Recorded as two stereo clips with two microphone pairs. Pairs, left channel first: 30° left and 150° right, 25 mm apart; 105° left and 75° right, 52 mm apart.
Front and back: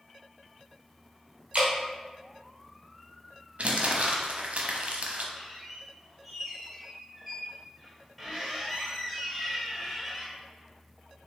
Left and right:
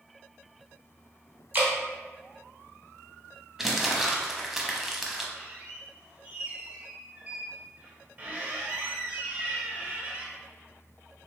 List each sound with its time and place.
1.5 s dripping: 120° right, 1.6 m
3.6 s crumpling: 155° right, 0.6 m
5.4 s a squeak: 70° right, 0.9 m